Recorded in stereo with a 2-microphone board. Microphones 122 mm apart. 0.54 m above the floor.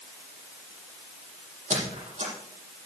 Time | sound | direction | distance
1.7 | a squeak | 80° right | 7 m